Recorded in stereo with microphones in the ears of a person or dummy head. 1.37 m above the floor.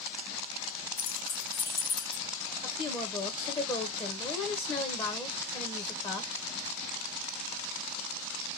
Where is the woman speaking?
20° left (ahead or behind), 0.9 m.